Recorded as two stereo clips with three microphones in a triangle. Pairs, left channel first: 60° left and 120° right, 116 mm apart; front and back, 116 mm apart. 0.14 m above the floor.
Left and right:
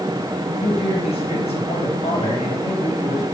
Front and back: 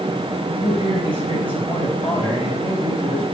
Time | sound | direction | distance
0.6 | a man speaking | 40° left | 3.5 m